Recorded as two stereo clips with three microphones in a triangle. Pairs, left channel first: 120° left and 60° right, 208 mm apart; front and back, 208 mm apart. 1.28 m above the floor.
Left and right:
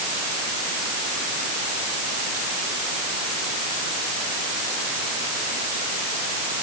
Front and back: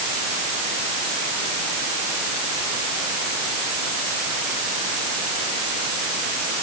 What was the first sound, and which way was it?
Only background noise.